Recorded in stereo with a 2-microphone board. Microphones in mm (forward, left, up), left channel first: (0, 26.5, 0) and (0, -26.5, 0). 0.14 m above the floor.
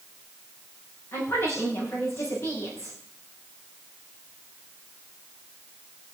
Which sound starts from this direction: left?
A woman speaking, at 1.1 s.